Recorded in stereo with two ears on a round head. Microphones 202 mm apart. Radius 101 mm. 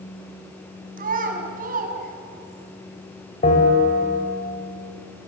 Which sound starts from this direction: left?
A bell, at 3.4 s.